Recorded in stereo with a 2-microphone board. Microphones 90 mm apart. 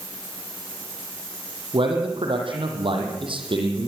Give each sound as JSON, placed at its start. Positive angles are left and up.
{"t": 1.7, "sound": "a man speaking", "side_deg": -70, "distance_m": 6.5}